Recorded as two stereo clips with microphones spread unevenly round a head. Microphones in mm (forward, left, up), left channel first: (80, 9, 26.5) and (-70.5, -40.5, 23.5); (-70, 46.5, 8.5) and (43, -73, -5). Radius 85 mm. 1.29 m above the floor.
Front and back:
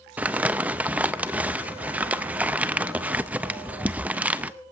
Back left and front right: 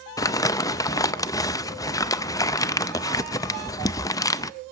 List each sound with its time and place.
0.2 s crumpling: 125° left, 0.5 m